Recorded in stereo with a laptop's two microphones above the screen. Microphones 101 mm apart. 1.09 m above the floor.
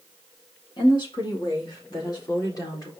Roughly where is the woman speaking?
Left.